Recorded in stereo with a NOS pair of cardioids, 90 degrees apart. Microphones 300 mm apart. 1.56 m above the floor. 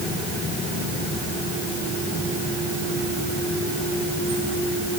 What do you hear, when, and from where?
Only background noise.